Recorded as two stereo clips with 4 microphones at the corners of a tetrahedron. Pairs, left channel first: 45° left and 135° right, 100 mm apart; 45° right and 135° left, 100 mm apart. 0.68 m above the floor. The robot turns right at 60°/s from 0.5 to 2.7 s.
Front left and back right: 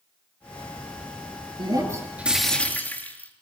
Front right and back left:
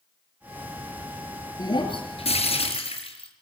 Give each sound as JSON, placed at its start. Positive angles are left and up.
{"t": 1.6, "sound": "breaking glass", "azimuth_deg": -95, "distance_m": 5.0}